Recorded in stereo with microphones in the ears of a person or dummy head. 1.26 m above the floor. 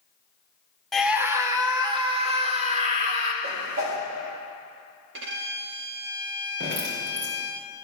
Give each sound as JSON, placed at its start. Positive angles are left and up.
{"t": 0.9, "sound": "a scream", "side_deg": 5, "distance_m": 0.7}
{"t": 3.4, "sound": "a whoosh", "side_deg": -85, "distance_m": 2.0}
{"t": 5.1, "sound": "a violin", "side_deg": -60, "distance_m": 0.9}
{"t": 6.6, "sound": "dripping", "side_deg": -55, "distance_m": 2.0}